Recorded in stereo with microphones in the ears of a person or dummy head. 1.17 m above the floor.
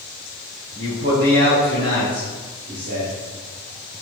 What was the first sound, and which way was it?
A man speaking, 35° right (ahead or behind).